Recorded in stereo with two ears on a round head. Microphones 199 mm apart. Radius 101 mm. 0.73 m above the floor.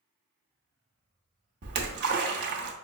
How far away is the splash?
About 0.8 m.